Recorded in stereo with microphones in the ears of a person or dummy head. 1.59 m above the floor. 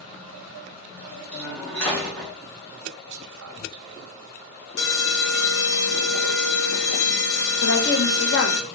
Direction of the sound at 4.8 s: 60° left (ahead or behind).